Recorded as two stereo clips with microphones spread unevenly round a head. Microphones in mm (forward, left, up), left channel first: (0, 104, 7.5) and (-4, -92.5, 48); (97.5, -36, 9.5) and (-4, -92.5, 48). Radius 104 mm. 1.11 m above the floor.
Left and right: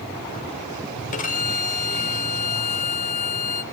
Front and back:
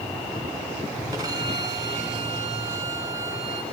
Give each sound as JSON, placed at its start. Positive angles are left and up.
{"t": 1.1, "sound": "a violin", "azimuth_deg": 145, "distance_m": 1.5}